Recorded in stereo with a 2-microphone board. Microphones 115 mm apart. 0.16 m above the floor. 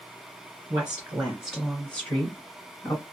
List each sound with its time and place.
0.7 s a woman speaking: 20° right (ahead or behind), 1.8 m; by 3.0 s 30° left (ahead or behind), 1.7 m